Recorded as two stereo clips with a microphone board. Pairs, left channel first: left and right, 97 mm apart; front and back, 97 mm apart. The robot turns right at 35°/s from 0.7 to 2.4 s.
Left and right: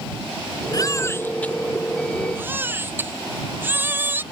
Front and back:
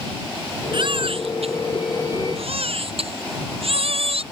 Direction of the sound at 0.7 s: 140° left.